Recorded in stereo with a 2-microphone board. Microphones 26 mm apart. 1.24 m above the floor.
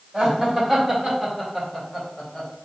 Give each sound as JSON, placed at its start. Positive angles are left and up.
{"t": 0.1, "sound": "laughter", "side_deg": -20, "distance_m": 2.0}